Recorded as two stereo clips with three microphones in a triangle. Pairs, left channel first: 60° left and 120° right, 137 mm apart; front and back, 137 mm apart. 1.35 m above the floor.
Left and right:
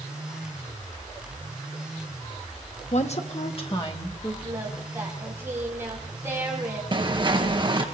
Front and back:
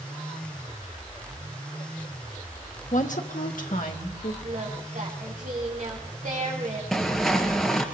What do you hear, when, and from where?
2.9 s a woman speaking: 25° left, 1.2 m; by 4.3 s 5° left, 2 m
4.4 s singing: 170° left, 3.5 m
6.9 s footsteps: 90° right, 1.7 m